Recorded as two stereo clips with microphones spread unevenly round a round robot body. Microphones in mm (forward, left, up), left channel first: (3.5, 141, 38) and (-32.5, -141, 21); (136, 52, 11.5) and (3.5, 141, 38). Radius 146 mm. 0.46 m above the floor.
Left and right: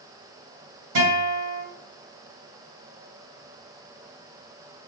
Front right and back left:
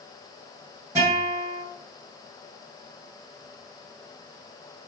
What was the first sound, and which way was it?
A guitar, 135° right.